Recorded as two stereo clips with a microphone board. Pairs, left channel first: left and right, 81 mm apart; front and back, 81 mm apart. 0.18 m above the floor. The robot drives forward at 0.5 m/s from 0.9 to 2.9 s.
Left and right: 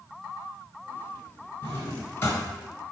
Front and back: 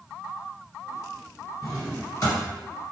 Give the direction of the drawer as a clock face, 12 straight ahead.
11 o'clock.